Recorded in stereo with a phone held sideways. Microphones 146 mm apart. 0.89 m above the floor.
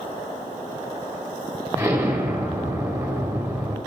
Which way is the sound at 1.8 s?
15° right (ahead or behind).